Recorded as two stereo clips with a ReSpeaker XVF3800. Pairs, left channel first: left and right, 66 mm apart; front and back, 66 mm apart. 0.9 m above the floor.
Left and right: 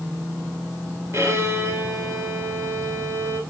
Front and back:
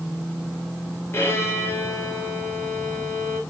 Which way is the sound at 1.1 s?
50° right.